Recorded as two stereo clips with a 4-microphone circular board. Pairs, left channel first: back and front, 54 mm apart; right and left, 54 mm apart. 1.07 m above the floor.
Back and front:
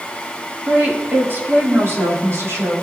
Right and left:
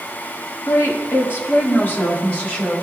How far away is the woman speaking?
About 1.5 m.